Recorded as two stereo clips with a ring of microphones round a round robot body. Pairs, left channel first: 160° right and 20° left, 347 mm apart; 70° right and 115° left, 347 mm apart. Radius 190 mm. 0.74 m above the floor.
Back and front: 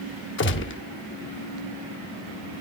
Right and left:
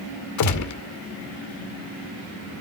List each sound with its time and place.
0.4 s a gunshot: 105° right, 0.7 m